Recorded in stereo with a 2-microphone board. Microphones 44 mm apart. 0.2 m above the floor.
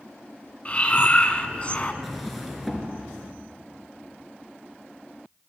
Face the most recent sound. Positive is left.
turn(degrees=0)  # may be behind; listen again after turning